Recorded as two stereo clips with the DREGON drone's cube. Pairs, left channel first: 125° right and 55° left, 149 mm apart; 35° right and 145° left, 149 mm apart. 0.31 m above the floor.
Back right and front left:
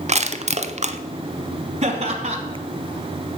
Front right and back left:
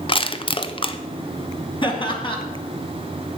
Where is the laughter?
20° left, 2 m.